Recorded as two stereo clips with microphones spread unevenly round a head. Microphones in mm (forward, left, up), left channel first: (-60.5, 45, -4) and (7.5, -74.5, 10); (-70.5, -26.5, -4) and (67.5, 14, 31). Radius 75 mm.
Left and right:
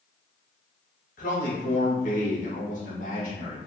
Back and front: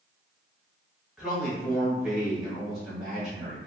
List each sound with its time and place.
1.2 s a man speaking: 110° left, 1.3 m